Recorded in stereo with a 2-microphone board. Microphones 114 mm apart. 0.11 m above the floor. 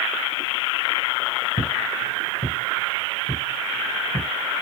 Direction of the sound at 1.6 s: 75° left (ahead or behind).